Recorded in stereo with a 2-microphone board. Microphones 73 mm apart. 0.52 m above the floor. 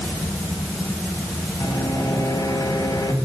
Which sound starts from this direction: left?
A microwave, at 1.6 s.